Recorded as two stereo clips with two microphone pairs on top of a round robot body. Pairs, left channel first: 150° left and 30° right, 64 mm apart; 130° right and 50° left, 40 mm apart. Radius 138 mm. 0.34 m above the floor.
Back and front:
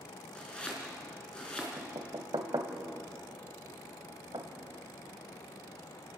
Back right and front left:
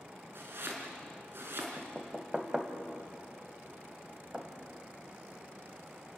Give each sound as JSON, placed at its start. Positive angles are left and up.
{"t": 0.3, "sound": "chopping", "azimuth_deg": 75, "distance_m": 4.0}
{"t": 1.8, "sound": "knocking", "azimuth_deg": -20, "distance_m": 2.0}